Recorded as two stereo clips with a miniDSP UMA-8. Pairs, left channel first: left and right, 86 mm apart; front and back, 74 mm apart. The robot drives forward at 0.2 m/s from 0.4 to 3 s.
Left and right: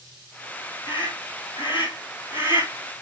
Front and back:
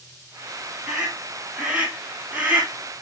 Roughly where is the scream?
Left.